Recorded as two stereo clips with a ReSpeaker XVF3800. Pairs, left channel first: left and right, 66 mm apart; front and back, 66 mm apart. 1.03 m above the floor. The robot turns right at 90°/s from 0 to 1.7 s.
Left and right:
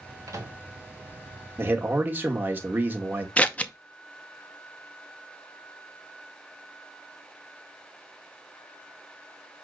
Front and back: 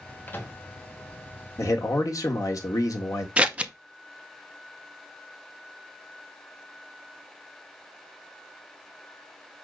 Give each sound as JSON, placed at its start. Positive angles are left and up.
{"t": 0.3, "sound": "a microwave", "azimuth_deg": -60, "distance_m": 1.5}
{"t": 1.6, "sound": "a man speaking", "azimuth_deg": -40, "distance_m": 1.6}
{"t": 3.4, "sound": "scissors", "azimuth_deg": 135, "distance_m": 0.6}